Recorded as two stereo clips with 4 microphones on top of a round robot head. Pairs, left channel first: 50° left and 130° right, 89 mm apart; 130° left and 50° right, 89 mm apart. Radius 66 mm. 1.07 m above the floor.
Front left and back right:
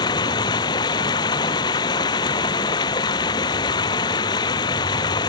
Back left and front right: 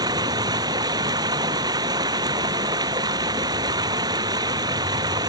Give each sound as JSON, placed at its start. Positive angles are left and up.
{"t": 0.0, "sound": "running water", "azimuth_deg": 0}